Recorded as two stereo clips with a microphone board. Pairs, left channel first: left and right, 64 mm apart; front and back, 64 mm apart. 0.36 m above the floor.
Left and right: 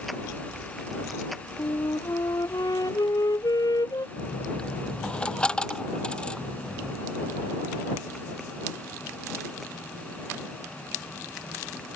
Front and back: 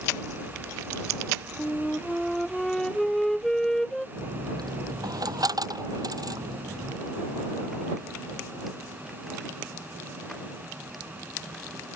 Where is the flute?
80° left.